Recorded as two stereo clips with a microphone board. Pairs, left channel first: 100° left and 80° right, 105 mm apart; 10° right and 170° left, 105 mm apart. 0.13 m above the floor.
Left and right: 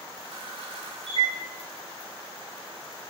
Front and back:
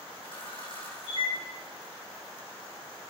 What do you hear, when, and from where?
0.2 s a camera shutter: 45° right, 4.5 m